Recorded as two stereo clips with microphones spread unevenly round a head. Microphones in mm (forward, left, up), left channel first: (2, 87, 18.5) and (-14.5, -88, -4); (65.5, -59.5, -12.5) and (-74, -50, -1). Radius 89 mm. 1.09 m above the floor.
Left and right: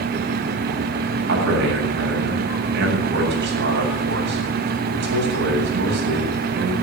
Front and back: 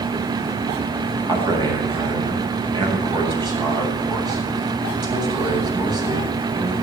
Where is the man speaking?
125° right, 7.5 m.